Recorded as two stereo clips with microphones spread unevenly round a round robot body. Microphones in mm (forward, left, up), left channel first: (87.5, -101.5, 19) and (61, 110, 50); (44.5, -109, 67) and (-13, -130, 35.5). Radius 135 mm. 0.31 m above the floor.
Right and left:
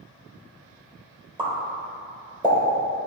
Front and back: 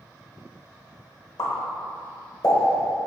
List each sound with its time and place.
1.4 s a pop: 30° left, 1.4 m